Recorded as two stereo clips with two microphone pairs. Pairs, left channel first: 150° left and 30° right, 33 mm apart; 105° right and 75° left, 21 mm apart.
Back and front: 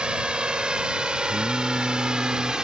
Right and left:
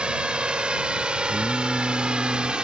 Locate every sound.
0.0 s a drone: 35° left
1.3 s singing: 105° right